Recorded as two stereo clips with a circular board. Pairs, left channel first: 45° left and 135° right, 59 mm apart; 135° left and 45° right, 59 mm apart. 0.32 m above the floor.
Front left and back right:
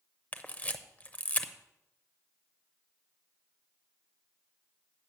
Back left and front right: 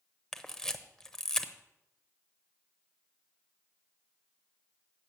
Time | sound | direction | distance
0.3 | a camera shutter | 65° left | 0.7 m